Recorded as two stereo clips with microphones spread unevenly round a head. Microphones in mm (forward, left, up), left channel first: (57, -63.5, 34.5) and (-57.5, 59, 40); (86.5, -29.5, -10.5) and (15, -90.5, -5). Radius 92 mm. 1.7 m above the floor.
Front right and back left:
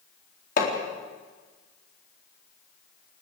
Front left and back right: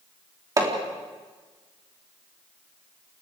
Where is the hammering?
90° right, 4 m.